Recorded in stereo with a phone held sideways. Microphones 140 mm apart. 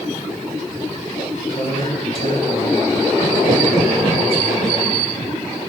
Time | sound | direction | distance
1.5 | a man speaking | 45° left (ahead or behind) | 4.5 m